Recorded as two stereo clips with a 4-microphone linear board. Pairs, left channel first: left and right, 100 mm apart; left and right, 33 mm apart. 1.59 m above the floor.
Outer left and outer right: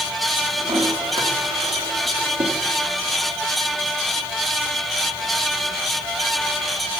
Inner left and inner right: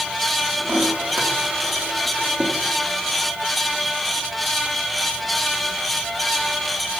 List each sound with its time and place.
0.6 s a toilet flushing: 60° right (ahead or behind), 4 m